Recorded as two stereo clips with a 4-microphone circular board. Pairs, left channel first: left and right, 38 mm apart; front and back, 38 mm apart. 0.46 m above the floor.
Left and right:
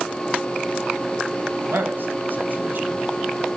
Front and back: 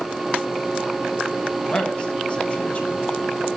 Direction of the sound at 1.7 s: 65° right.